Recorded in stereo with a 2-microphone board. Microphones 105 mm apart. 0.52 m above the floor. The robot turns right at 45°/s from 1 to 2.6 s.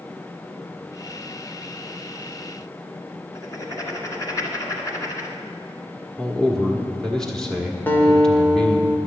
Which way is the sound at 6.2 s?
5° left (ahead or behind).